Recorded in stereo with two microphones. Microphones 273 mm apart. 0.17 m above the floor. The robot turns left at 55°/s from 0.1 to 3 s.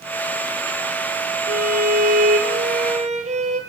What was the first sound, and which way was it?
A violin, 70° right.